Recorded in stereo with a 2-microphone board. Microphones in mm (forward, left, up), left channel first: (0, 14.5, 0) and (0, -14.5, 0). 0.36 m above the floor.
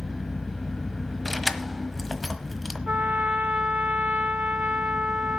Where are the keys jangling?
Centre (ahead or behind), 1.2 m.